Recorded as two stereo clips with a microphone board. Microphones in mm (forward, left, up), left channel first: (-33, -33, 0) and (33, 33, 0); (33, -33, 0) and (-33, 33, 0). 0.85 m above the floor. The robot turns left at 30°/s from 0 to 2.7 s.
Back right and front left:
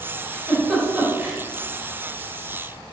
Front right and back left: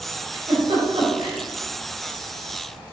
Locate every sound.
0.3 s a giggle: 145° left, 4 m; by 1.4 s 115° left, 4 m